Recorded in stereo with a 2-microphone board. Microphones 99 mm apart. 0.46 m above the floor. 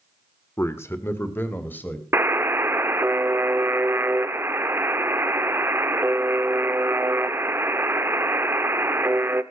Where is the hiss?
I don't hear a hiss.